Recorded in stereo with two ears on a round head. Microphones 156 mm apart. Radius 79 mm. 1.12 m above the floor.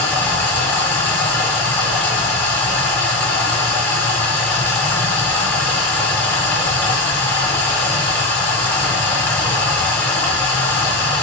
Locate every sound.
0.0 s running water: 10° left (ahead or behind), 0.9 m